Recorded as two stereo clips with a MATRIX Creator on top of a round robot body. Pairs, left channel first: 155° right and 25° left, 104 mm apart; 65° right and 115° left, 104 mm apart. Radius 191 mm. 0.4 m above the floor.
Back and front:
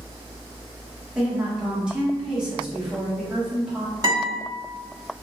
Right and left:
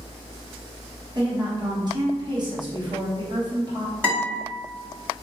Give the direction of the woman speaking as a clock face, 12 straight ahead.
9 o'clock.